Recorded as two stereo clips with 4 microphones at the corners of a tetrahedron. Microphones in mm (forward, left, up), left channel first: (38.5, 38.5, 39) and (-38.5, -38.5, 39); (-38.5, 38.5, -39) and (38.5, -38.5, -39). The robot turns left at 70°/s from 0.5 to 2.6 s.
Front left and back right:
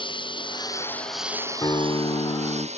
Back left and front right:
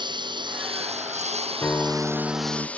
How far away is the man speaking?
No man speaking in this recording.